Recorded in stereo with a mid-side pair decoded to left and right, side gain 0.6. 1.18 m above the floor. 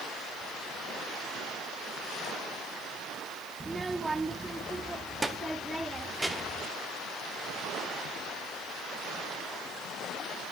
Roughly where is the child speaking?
Ahead.